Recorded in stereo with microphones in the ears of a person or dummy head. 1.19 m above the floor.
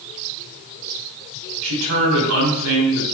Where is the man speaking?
80° right, 2.5 m.